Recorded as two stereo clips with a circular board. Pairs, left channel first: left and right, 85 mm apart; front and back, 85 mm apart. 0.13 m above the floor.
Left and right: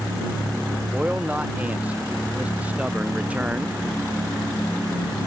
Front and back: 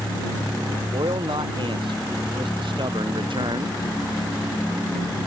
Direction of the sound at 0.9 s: 165° right.